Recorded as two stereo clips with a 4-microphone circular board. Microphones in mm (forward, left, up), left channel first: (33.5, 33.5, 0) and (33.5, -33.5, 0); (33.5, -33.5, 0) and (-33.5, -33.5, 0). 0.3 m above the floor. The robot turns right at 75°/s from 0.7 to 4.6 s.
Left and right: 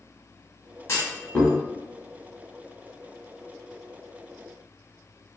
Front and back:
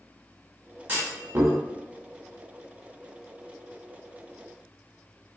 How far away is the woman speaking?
I don't hear a woman speaking.